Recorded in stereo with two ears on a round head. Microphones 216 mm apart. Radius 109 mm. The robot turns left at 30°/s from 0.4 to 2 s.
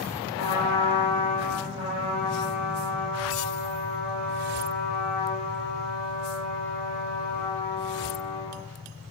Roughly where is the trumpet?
Left.